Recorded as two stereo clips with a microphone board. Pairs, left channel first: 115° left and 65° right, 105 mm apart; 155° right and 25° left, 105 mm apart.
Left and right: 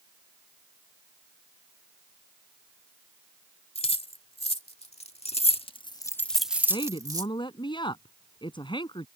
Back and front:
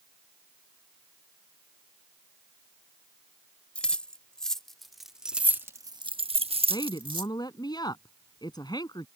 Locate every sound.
3.8 s keys jangling: 125° left; by 7.3 s 20° right
6.7 s a woman speaking: 155° left